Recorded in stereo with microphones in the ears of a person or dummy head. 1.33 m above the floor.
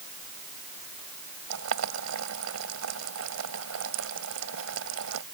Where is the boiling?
85° right.